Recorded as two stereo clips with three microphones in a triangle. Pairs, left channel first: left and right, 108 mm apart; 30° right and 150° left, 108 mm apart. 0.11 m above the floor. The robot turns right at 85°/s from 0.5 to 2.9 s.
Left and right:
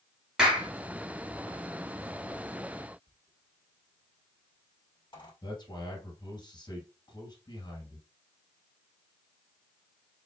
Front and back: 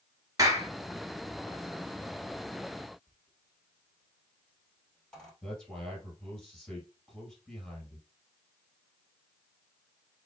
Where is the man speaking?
50° left, 2.5 m.